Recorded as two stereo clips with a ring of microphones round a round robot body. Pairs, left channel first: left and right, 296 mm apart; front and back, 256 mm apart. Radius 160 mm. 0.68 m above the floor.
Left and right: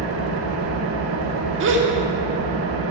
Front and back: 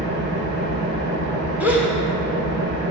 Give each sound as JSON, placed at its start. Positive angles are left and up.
{"t": 0.0, "sound": "an engine running", "azimuth_deg": -135, "distance_m": 1.3}
{"t": 1.6, "sound": "a gasp", "azimuth_deg": -100, "distance_m": 1.2}